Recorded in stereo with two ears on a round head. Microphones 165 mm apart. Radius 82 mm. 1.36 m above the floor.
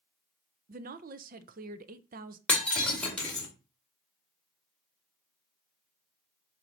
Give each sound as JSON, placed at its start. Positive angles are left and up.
{"t": 0.7, "sound": "a woman speaking", "side_deg": -50, "distance_m": 0.6}
{"t": 2.5, "sound": "breaking glass", "side_deg": 5, "distance_m": 2.5}